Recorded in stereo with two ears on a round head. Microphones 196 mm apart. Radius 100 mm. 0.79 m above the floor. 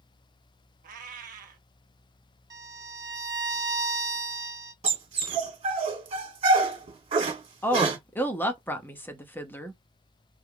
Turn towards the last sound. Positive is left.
turn(degrees=10)  # may be behind; listen again after turning